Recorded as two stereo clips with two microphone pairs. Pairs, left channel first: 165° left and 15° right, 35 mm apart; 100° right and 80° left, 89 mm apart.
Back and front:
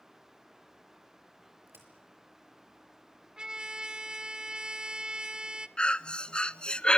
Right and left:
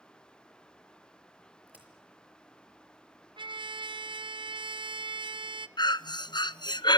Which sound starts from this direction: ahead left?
A trumpet, at 3.4 s.